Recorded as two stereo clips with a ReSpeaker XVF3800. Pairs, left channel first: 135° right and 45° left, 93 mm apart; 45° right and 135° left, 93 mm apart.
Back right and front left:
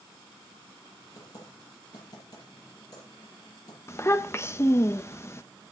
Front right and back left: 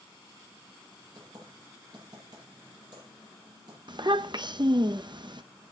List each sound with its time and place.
1.1 s typing on a keyboard: straight behind, 10 m
3.9 s a child speaking: 165° left, 0.9 m